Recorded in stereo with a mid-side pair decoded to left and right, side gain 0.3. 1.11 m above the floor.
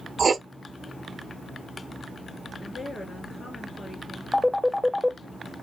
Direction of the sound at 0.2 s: 55° right.